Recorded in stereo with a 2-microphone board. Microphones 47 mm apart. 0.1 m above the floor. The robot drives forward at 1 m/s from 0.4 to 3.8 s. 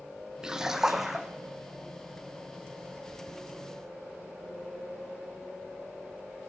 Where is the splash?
15° right (ahead or behind), 0.6 m; by 1.3 s 5° right (ahead or behind), 1.4 m.